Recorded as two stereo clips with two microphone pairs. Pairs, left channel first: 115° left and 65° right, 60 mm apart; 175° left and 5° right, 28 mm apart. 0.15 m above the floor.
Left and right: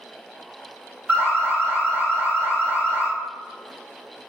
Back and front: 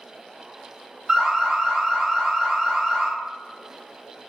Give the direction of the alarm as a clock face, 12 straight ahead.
2 o'clock.